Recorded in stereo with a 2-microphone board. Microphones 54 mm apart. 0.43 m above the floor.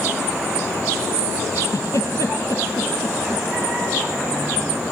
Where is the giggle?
70° left (ahead or behind), 4 m.